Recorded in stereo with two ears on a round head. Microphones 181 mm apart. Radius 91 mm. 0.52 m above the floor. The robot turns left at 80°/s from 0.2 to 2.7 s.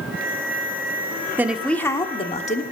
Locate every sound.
1.4 s a woman speaking: 160° right, 0.9 m; by 2.6 s 100° left, 0.9 m